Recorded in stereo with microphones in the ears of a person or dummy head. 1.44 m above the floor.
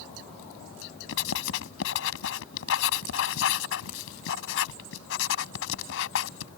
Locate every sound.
1.1 s writing: 70° left (ahead or behind)